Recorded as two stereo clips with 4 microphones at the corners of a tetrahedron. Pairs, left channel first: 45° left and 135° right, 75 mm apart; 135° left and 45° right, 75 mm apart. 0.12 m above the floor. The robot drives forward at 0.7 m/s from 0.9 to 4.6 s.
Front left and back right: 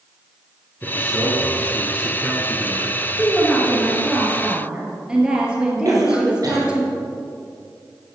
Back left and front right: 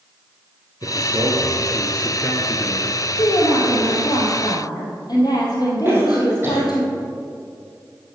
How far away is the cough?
About 3 m.